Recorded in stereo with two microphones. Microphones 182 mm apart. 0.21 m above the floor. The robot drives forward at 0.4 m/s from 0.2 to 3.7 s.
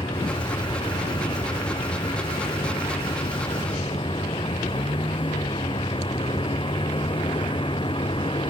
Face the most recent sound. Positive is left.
turn(degrees=30)  # may be behind; listen again after turning